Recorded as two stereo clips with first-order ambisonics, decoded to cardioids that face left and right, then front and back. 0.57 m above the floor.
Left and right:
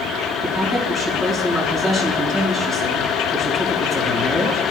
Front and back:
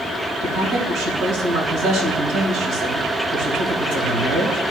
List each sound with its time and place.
0.4 s a man speaking: 170° left, 3 m